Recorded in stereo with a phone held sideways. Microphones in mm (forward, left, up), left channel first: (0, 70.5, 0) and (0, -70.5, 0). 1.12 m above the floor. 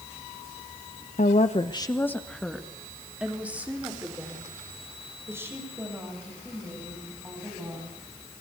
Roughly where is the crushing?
No crushing in this recording.